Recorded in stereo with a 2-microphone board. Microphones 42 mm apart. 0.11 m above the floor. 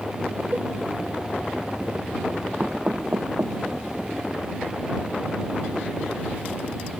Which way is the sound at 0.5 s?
40° right (ahead or behind).